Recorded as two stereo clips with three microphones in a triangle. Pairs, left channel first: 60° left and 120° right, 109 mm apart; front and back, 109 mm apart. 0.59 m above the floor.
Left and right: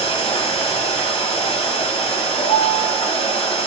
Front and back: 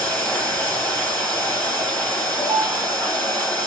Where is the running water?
75° left, 1.2 m.